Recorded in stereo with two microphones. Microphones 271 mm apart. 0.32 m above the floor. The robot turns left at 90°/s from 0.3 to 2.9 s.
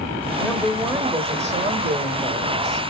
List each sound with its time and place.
0.4 s a woman speaking: 10° left (ahead or behind), 0.9 m; by 2.8 s 5° left (ahead or behind), 0.9 m